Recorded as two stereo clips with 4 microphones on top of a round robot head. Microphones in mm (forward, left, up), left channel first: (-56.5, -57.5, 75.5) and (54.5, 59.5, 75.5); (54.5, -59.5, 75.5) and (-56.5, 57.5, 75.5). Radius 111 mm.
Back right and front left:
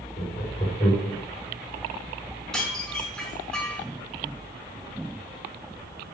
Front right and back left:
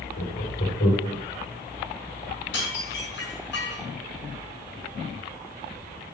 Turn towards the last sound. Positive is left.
turn(degrees=-50)